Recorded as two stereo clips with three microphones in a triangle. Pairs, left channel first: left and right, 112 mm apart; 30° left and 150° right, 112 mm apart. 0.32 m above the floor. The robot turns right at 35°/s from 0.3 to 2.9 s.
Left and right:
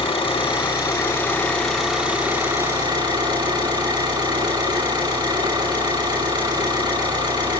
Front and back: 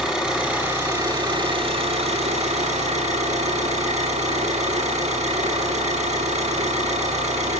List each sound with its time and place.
0.0 s an engine running: 130° left, 9.5 m; by 7.6 s 140° right, 9.5 m